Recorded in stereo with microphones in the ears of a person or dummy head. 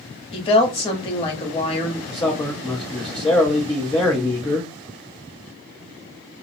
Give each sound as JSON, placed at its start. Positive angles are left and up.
{"t": 0.3, "sound": "a woman speaking", "side_deg": 30, "distance_m": 1.0}
{"t": 2.1, "sound": "a man speaking", "side_deg": 20, "distance_m": 0.9}